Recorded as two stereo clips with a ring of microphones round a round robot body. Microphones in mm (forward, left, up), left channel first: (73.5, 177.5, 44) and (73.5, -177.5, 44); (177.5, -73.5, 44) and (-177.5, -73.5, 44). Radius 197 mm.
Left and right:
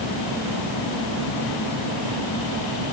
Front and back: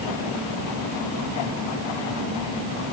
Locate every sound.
Only background noise.